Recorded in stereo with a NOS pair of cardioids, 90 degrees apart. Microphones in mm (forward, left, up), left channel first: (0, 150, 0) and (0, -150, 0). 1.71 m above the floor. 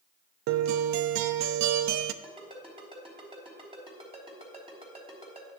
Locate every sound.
0.5 s a guitar: 65° right, 0.5 m
2.2 s a ringtone: 15° right, 3.5 m